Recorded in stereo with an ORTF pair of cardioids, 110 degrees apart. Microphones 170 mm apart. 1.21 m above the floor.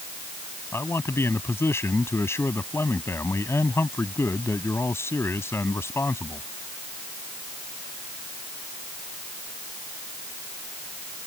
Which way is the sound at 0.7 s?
15° left.